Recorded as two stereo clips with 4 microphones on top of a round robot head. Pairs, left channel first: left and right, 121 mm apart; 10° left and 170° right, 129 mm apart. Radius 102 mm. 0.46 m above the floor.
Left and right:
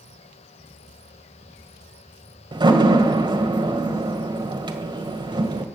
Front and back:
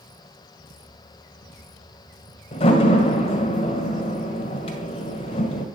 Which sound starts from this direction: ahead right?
A door slam, at 2.5 s.